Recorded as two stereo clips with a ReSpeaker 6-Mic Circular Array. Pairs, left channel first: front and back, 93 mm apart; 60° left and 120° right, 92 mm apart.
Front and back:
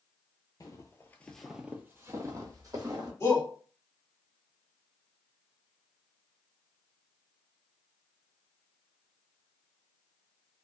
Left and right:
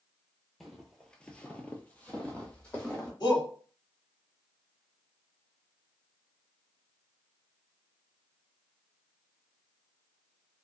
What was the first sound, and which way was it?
Footsteps, 30° right.